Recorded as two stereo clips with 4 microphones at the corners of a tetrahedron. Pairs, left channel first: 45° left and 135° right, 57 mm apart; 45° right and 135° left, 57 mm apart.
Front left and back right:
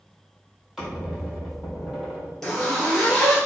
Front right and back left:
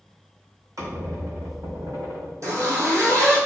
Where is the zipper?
130° left, 1.1 m.